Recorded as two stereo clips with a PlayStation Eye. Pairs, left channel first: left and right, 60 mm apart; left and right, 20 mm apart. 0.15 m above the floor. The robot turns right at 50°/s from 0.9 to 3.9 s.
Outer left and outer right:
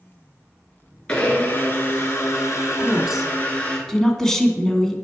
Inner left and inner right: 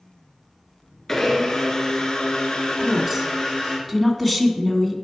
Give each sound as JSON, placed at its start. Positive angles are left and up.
{"t": 1.1, "sound": "a blender", "azimuth_deg": 20, "distance_m": 1.8}
{"t": 2.8, "sound": "a woman speaking", "side_deg": -15, "distance_m": 1.1}